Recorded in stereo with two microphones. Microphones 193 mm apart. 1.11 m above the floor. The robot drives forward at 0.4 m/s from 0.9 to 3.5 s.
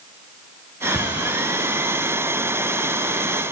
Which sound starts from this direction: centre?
A cupboard door, at 0.9 s.